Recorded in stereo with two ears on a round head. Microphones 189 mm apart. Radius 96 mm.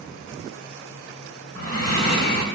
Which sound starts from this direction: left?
Breathing, at 1.6 s.